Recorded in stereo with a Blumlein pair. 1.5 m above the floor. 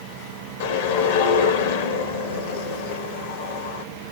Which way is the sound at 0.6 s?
55° left.